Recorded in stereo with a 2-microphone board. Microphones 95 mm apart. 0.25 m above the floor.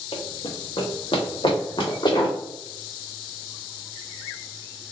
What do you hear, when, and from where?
0.1 s running footsteps: 80° left, 1.0 m; by 2.4 s 50° left (ahead or behind), 1.8 m